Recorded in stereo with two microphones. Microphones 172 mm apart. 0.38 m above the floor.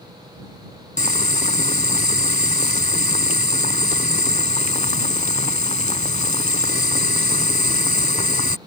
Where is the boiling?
45° left (ahead or behind).